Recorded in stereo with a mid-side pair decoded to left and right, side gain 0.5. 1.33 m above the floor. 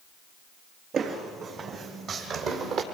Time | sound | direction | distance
0.9 | footsteps | 50° right | 6 m